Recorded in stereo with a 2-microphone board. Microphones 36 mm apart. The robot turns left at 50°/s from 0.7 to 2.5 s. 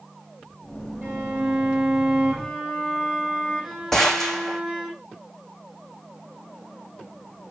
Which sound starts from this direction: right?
A violin, at 1.0 s.